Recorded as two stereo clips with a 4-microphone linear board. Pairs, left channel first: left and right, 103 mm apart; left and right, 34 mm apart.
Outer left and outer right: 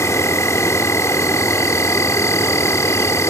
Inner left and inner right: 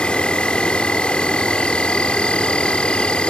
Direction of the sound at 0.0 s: 30° left (ahead or behind).